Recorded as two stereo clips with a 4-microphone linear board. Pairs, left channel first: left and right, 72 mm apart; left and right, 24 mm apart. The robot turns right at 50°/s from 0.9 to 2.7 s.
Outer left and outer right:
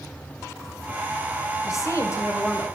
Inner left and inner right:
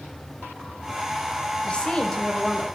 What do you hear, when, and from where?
1.6 s a woman speaking: 90° left, 1.6 m; by 2.7 s 140° left, 1.6 m